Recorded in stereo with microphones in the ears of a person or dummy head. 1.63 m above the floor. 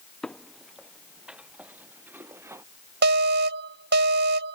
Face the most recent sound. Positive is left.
turn(degrees=-60)  # may be behind; listen again after turning